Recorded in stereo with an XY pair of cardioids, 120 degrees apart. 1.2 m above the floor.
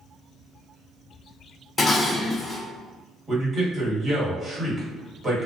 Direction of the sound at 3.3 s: 30° right.